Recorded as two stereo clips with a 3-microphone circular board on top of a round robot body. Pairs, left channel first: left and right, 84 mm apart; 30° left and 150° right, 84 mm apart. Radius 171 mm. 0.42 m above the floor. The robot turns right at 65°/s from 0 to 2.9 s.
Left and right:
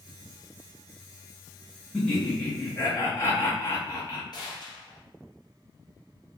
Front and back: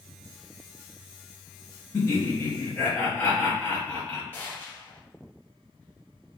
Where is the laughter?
10° left, 1.1 m; by 4.2 s 75° left, 1.1 m.